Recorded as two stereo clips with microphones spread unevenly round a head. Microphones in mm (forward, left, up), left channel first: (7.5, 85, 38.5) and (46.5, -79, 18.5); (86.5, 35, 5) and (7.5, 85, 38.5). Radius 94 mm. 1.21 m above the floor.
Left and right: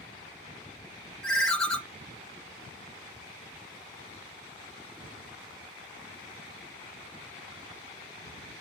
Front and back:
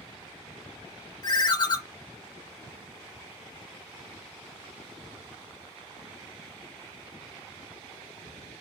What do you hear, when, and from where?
1.2 s a ringtone: 20° left, 0.6 m